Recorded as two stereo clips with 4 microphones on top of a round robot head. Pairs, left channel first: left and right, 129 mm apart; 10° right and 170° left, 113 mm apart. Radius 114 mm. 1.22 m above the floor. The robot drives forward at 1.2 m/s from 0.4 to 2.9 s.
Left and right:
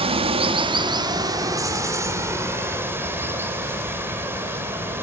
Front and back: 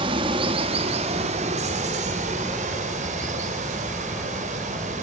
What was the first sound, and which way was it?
Running water, 135° right.